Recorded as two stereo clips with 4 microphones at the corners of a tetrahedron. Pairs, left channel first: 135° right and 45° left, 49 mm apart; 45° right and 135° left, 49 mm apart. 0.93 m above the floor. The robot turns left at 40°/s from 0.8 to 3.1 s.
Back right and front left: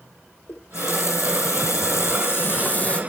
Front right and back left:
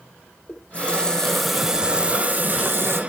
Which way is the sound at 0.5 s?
110° right.